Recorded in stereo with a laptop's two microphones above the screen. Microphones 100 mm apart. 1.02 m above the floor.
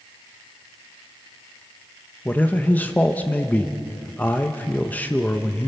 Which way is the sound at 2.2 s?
15° left (ahead or behind).